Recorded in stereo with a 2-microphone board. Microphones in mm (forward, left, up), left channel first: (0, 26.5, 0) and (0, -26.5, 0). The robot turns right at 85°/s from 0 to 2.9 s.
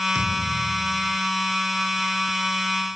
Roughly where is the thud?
Behind right.